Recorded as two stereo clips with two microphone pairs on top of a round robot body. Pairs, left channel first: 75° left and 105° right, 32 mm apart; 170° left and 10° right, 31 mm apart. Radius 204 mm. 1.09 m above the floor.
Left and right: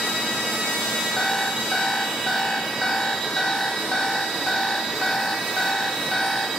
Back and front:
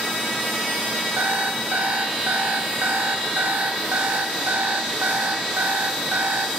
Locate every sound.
1.2 s an alarm clock: straight ahead, 1.8 m